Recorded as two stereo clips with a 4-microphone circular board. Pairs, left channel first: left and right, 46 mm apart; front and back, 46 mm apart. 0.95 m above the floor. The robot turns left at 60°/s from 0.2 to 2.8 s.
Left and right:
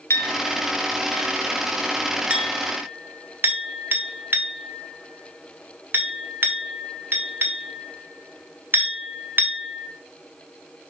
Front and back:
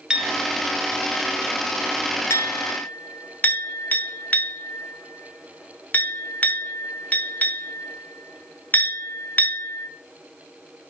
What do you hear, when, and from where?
0.1 s a clink: 105° left, 1.1 m; by 9.9 s 55° right, 1.1 m